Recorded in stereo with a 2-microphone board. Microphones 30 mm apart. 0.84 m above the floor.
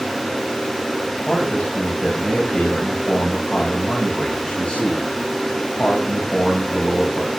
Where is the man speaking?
45° left (ahead or behind), 6 m.